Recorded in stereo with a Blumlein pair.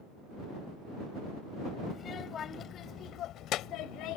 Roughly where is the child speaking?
Ahead left.